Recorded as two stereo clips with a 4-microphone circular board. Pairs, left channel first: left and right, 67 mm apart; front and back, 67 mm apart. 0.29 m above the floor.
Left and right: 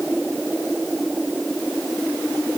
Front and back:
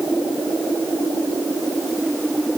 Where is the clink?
No clink in this recording.